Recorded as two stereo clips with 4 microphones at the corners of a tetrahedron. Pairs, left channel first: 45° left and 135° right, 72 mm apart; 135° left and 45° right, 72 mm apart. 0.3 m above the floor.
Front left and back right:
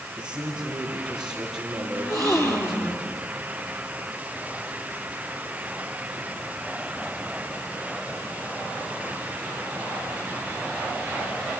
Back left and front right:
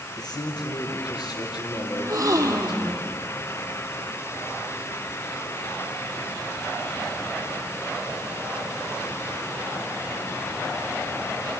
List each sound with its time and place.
0.2 s a man speaking: 145° left, 6.5 m
1.9 s a gasp: straight ahead, 3.5 m